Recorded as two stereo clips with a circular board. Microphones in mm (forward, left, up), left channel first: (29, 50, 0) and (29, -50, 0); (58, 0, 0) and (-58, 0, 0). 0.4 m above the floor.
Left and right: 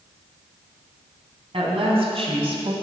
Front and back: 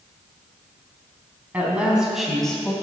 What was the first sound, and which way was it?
A woman speaking, 105° right.